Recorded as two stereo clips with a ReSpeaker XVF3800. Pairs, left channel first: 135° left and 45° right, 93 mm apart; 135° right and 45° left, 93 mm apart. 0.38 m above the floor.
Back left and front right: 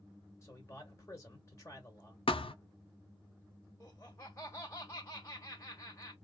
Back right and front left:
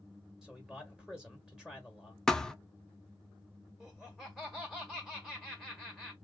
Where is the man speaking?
120° left, 1.2 m.